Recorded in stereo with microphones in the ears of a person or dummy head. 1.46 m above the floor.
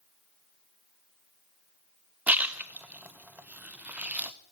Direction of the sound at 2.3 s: 5° right (ahead or behind).